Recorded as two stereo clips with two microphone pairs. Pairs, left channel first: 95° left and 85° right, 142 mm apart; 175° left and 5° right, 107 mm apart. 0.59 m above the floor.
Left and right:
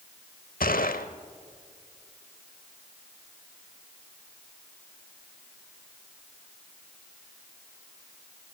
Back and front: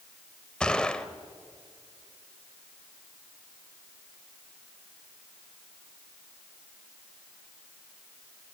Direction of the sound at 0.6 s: 90° left.